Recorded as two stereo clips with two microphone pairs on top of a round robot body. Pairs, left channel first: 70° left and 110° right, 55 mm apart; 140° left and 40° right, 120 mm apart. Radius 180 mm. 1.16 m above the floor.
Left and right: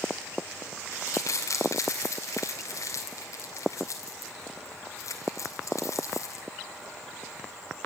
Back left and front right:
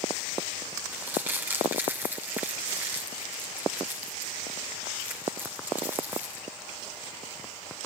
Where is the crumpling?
40° left, 2.5 m.